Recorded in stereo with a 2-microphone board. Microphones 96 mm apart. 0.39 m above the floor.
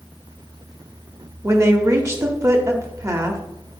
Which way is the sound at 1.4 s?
30° right (ahead or behind).